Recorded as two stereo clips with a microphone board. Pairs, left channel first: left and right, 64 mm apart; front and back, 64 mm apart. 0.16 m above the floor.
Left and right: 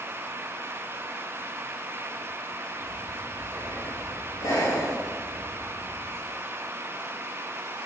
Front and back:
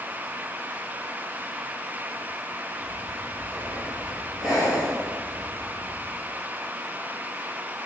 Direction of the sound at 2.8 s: 95° left.